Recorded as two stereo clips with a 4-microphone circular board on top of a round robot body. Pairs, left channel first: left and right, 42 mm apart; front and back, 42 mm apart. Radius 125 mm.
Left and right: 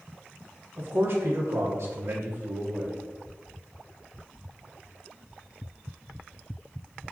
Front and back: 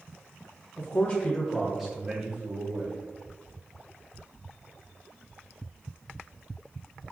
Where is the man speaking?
45° right, 0.8 m; by 3.0 s 150° right, 0.7 m.